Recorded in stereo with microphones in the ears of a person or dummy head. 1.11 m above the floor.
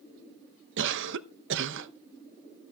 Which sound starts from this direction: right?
A cough, at 0.8 s.